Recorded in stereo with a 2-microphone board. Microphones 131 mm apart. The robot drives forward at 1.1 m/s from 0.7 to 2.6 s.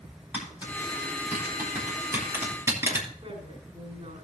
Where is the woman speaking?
55° right (ahead or behind), 6 m.